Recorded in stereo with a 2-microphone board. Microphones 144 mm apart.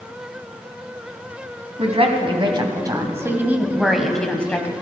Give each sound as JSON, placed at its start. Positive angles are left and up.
{"t": 1.8, "sound": "a woman speaking", "side_deg": -45, "distance_m": 2.5}